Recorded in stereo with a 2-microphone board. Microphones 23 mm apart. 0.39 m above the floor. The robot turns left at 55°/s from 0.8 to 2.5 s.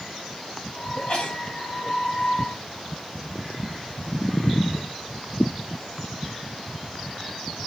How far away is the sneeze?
About 3 m.